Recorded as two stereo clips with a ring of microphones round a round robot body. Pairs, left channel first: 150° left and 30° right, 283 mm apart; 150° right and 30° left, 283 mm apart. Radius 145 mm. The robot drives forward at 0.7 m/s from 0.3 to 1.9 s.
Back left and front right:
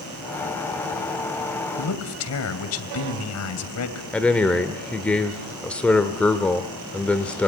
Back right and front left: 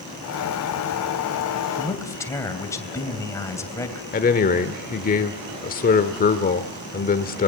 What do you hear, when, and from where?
1.8 s a man speaking: 130° left, 2.5 m
4.1 s a man speaking: 130° right, 1.2 m